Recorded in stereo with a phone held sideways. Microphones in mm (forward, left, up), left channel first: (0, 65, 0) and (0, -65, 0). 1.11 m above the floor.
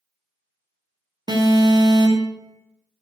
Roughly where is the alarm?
Right.